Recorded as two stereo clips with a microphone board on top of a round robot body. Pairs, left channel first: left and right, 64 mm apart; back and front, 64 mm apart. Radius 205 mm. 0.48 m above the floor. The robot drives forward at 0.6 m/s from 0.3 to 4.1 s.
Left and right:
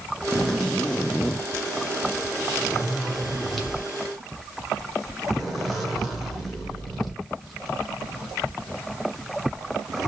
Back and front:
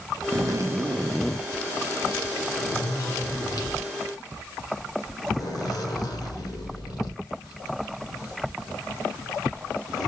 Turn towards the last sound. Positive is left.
turn(degrees=175)